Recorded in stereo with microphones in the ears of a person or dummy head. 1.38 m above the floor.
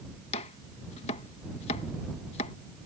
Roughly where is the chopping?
Left.